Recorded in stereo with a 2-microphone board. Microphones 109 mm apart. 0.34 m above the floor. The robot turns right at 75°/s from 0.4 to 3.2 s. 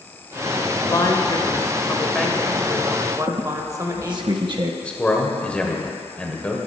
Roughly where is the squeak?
Right.